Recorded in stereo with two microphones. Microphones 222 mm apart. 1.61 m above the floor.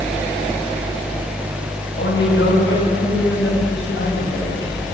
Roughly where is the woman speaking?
Left.